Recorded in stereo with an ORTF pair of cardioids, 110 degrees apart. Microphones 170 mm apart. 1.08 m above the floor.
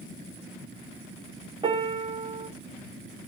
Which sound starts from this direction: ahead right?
A piano, at 1.6 s.